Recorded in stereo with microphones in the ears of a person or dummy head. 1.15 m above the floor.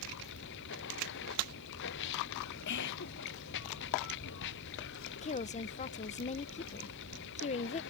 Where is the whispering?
55° left (ahead or behind).